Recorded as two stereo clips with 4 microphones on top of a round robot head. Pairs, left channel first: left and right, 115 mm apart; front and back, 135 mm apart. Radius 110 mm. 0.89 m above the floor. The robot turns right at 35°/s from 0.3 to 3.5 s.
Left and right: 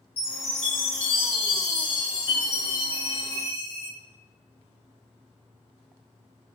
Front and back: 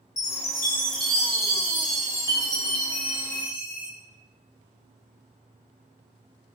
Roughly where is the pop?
No pop in this recording.